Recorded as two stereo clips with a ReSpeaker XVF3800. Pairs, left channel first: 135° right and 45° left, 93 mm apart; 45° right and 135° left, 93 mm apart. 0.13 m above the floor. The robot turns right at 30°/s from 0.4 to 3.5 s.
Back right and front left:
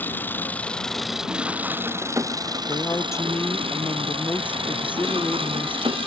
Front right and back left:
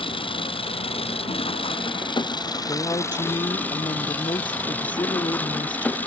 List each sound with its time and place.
0.0 s an engine running: 65° right; by 6.1 s 30° left
2.7 s a woman speaking: 90° right; by 6.0 s 65° right